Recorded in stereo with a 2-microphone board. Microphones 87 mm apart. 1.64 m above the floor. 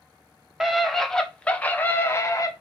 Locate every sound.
0.6 s a scream: centre (ahead or behind), 1.6 m; by 2.5 s 40° left (ahead or behind), 1.2 m